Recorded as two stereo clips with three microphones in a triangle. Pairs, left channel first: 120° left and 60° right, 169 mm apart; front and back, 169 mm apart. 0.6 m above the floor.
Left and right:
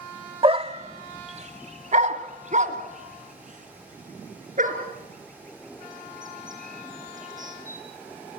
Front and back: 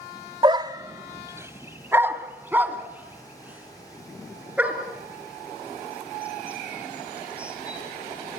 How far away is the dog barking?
About 0.6 m.